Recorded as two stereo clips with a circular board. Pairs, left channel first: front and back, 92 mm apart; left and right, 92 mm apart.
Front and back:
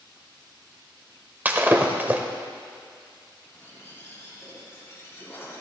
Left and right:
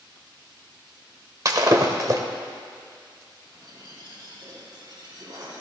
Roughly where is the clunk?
I don't hear a clunk.